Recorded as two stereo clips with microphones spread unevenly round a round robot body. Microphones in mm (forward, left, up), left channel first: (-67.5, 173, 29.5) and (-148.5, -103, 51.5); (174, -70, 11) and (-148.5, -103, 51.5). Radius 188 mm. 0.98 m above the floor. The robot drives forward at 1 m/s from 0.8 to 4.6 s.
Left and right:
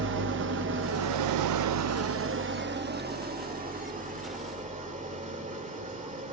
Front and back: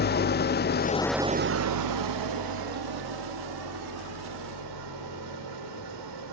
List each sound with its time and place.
0.0 s an engine running: 50° right, 0.7 m; by 6.3 s 170° right, 3.5 m